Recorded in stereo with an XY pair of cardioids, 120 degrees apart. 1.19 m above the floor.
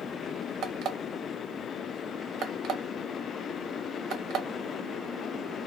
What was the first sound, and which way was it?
An alarm clock, 70° right.